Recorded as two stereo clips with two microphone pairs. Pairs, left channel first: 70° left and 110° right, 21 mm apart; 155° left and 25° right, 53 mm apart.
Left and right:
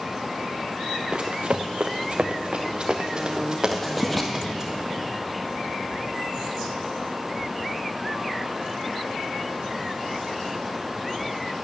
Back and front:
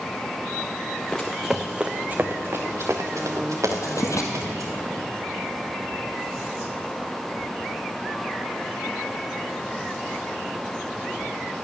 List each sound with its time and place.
1.1 s running footsteps: 130° right, 0.9 m; by 4.7 s 35° right, 2.5 m
3.7 s writing: 160° left, 1.5 m